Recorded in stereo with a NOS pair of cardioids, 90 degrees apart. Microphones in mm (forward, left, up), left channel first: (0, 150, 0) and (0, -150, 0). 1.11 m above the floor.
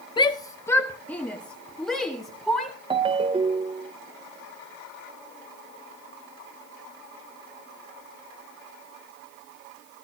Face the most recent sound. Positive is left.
turn(degrees=-15)